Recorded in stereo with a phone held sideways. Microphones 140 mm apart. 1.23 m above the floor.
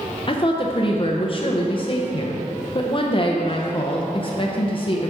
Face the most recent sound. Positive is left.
turn(degrees=40)  # may be behind; listen again after turning